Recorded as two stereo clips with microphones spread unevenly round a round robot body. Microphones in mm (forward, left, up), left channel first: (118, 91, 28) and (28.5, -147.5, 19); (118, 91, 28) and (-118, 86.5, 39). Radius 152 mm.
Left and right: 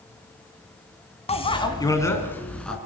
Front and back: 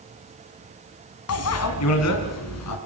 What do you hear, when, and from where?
1.3 s a bicycle bell: 5° left, 2.5 m; by 2.8 s 20° right, 3.5 m